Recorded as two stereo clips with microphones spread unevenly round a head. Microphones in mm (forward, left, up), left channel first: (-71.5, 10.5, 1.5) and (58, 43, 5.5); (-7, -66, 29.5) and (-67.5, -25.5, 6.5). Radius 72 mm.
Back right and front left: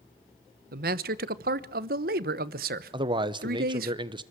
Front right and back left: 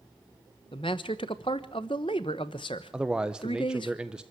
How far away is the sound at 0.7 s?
About 1.0 m.